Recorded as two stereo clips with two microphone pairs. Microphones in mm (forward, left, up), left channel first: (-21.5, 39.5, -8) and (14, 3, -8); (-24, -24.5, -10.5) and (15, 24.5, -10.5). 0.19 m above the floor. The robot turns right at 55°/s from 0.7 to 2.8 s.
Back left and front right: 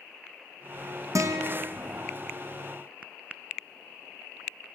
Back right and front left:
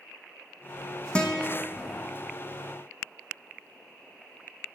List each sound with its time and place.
1.1 s a guitar: 55° right, 1.4 m; by 1.7 s 25° right, 1.4 m